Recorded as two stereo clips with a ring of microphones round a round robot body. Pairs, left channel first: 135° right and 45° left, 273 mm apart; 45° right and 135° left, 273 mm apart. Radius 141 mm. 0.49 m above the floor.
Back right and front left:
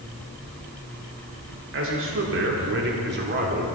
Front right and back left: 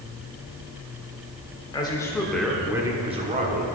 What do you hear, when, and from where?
1.7 s a man speaking: 25° left, 1.7 m; by 3.7 s 90° left, 1.7 m